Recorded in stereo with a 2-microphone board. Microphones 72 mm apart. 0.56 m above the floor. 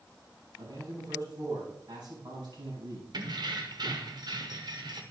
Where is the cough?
I don't hear a cough.